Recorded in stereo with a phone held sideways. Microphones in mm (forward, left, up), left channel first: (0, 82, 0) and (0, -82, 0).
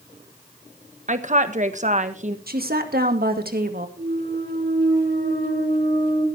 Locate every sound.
1.1 s a woman speaking: 45° right (ahead or behind), 1.3 m
2.5 s a woman speaking: 65° right (ahead or behind), 2.0 m
4.0 s a clunk: 80° right, 3.5 m